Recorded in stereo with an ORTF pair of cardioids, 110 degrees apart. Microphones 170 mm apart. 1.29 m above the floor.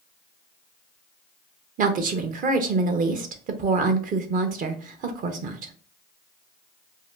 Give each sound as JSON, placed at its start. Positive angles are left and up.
{"t": 1.8, "sound": "a woman speaking", "azimuth_deg": -50, "distance_m": 0.7}